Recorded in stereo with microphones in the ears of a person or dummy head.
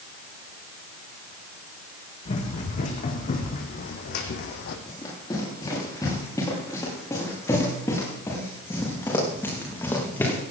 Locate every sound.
2.2 s running footsteps: 40° left (ahead or behind), 4 m; by 4.8 s 60° left (ahead or behind), 3 m
4.9 s running footsteps: 25° left (ahead or behind), 9.5 m; by 10.4 s 15° left (ahead or behind), 6 m